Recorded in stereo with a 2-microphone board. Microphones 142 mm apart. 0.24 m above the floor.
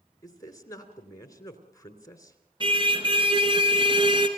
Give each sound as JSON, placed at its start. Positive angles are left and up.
{"t": 0.2, "sound": "a man speaking", "side_deg": 25, "distance_m": 3.0}
{"t": 2.6, "sound": "a car horn", "side_deg": -35, "distance_m": 2.5}